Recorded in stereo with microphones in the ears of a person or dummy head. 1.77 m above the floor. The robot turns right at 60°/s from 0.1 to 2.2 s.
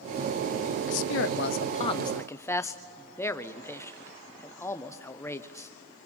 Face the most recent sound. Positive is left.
turn(degrees=165)